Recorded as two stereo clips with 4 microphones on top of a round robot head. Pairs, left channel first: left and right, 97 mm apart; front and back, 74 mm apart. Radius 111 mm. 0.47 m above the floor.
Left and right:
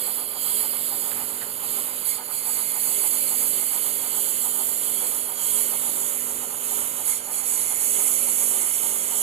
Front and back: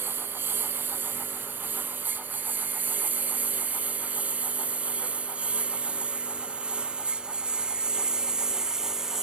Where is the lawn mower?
110° right; by 9.2 s 95° right.